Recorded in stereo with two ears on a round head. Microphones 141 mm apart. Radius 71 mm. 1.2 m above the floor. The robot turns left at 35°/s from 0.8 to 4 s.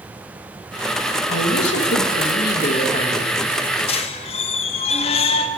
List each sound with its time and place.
1.3 s a man speaking: 105° left, 1.2 m; by 3.5 s 25° left, 1.2 m
3.9 s a squeak: 40° left (ahead or behind), 0.6 m